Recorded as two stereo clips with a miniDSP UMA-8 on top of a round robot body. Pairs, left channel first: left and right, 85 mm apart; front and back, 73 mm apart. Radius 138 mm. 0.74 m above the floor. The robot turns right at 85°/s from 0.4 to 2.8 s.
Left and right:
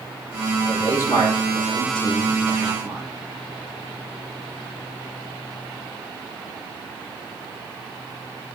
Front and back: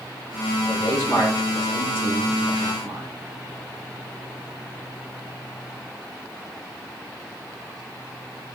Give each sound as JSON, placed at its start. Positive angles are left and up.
{"t": 0.7, "sound": "a man speaking", "azimuth_deg": 15, "distance_m": 3.5}